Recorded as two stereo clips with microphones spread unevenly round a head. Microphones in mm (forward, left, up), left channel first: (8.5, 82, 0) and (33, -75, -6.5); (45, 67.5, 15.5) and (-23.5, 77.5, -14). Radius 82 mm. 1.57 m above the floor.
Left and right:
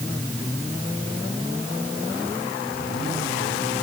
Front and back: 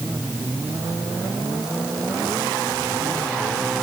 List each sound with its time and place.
Only background noise.